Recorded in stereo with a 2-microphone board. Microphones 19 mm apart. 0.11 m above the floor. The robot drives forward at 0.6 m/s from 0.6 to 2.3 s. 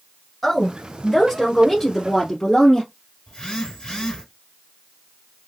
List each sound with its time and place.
0.4 s a woman speaking: 10° left (ahead or behind), 1.3 m; by 2.9 s 5° left (ahead or behind), 1.9 m
3.3 s a phone buzzing: 35° left (ahead or behind), 2.5 m